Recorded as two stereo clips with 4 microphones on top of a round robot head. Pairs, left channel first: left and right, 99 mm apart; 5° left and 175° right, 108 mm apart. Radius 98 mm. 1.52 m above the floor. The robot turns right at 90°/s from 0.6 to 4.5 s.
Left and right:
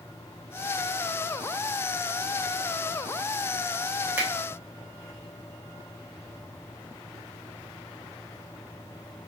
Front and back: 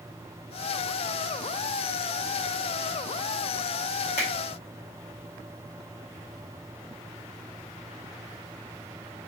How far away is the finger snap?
About 0.8 m.